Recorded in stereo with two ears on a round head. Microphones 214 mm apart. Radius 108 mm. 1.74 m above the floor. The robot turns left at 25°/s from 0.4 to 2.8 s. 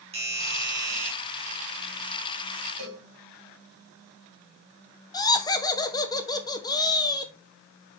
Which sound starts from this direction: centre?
Laughter, at 5.1 s.